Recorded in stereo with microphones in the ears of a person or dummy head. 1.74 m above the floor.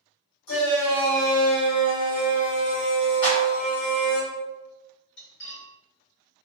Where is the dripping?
I don't hear dripping.